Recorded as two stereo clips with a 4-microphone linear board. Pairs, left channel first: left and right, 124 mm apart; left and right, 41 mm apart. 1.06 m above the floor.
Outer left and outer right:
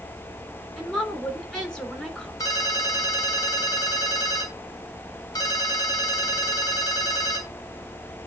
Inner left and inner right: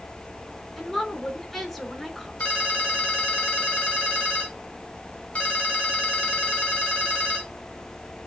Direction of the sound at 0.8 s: 5° left (ahead or behind).